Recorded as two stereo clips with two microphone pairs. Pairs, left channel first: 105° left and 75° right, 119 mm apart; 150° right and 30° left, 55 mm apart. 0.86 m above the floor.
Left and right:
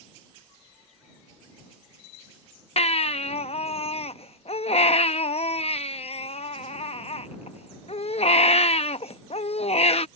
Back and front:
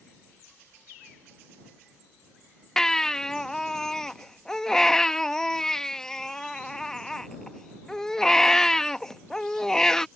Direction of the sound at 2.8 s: 130° left.